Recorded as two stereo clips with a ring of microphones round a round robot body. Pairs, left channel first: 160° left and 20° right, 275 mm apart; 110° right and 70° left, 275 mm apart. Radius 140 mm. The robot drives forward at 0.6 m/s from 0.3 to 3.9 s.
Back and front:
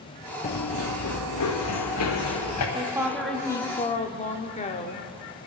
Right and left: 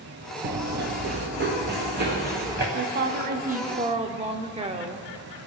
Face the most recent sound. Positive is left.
turn(degrees=115)